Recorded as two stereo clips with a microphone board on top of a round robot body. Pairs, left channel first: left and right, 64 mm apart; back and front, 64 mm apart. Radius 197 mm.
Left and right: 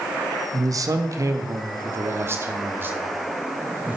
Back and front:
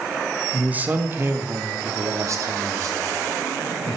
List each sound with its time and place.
0.5 s a man speaking: 70° right, 1.5 m; by 4.0 s 25° right, 3 m